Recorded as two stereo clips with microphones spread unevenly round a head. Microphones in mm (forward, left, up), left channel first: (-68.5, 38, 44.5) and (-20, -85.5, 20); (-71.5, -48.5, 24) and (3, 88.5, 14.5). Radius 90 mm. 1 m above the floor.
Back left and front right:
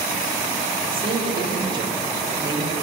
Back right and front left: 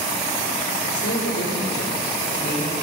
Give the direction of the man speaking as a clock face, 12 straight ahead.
4 o'clock.